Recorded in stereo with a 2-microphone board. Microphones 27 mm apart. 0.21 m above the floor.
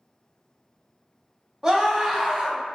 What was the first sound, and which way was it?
A scream, 25° right (ahead or behind).